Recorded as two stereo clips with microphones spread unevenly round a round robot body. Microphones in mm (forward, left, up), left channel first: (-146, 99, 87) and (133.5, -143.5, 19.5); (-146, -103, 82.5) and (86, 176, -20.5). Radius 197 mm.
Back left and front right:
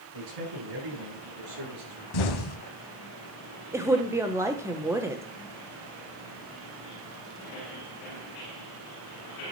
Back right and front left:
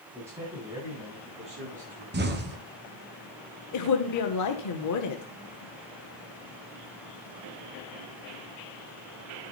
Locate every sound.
0.1 s a man speaking: 30° right, 9 m; by 2.0 s 15° right, 7.5 m
2.1 s an explosion: 110° left, 1.9 m
3.7 s a woman speaking: 100° right, 1.3 m